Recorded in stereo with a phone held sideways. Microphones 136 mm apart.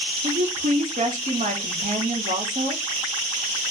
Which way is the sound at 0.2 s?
65° right (ahead or behind).